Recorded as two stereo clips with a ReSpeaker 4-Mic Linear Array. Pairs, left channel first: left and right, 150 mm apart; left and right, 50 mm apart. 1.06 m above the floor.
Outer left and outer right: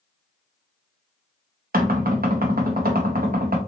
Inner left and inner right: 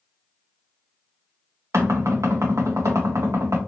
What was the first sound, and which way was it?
Knocking, 80° right.